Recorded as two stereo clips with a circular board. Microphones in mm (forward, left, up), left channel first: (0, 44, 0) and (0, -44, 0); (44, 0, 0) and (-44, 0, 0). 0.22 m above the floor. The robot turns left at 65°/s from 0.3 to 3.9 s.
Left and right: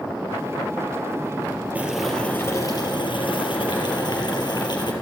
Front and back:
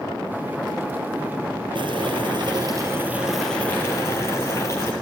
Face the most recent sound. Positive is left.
turn(degrees=55)